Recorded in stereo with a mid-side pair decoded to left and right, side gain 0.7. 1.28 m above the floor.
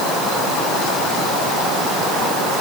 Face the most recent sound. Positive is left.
No sound to turn to.